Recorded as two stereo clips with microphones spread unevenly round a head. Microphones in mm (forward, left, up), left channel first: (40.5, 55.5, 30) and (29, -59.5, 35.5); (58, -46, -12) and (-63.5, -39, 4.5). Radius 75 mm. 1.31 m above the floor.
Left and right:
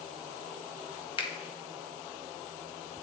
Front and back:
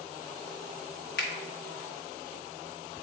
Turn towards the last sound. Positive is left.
turn(degrees=35)